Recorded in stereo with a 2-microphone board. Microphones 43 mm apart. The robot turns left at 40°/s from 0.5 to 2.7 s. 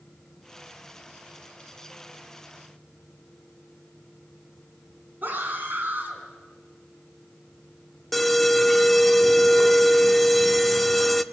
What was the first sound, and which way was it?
A scream, 45° right (ahead or behind).